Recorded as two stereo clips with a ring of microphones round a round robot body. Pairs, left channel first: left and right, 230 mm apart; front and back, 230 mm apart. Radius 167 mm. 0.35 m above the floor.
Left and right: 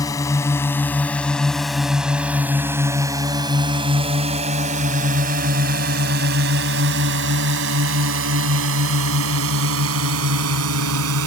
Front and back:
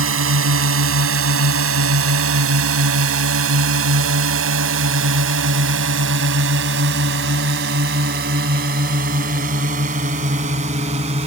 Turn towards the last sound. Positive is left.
turn(degrees=-110)